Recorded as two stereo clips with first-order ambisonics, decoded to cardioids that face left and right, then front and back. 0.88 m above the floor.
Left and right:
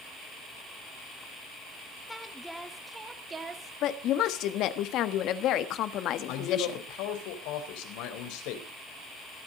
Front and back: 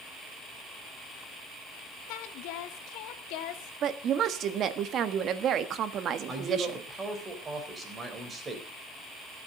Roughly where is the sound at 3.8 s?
Behind left.